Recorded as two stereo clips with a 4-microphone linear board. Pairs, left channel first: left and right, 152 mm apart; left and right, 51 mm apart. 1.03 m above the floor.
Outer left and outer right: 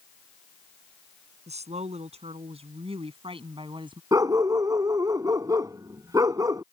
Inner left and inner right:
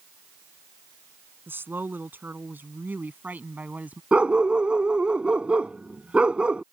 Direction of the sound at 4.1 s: 20° right (ahead or behind).